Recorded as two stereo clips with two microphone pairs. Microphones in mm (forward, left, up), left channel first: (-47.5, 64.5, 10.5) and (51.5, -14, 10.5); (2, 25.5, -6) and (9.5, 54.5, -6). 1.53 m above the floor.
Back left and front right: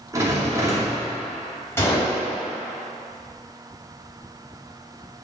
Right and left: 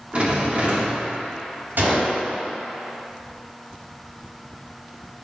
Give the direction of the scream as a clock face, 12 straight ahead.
I don't hear a scream.